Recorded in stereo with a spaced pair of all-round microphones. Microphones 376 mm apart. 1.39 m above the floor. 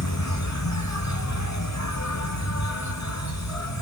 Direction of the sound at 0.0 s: 45° left (ahead or behind).